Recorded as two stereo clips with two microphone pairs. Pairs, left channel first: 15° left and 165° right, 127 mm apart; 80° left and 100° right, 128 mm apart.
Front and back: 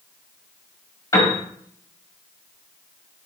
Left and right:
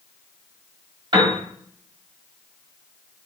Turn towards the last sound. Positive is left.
turn(degrees=-50)